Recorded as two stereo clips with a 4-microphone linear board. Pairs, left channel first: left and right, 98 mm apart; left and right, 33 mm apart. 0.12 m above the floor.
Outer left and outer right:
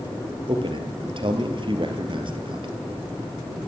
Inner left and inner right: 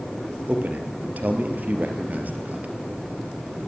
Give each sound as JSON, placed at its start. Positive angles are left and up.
{"t": 0.5, "sound": "a man speaking", "side_deg": -55, "distance_m": 3.0}